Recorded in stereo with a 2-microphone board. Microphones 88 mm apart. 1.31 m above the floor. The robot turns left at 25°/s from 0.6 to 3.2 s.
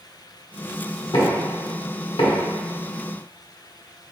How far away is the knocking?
About 1.1 m.